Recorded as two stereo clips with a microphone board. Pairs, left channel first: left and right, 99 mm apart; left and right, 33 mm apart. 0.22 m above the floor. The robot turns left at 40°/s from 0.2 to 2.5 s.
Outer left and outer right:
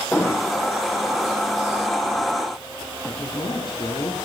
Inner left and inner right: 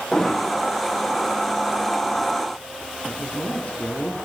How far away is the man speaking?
About 6 m.